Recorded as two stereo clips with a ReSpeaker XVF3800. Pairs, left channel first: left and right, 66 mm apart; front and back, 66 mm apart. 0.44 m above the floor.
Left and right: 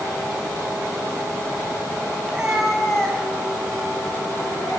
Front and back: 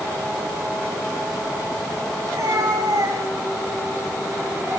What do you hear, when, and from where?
2.2 s a cat meowing: 165° right, 1.9 m; by 4.8 s 135° left, 3.5 m